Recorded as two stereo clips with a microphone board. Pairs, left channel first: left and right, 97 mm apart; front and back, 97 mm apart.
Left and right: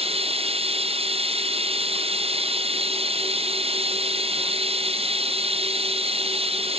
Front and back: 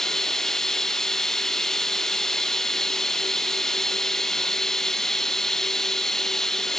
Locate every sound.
0.0 s running water: 85° right